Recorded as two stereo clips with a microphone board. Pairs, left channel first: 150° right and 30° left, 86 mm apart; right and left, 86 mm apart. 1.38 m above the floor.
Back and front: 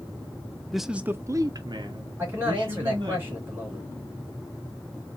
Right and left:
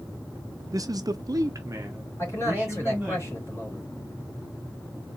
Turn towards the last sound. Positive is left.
turn(degrees=-35)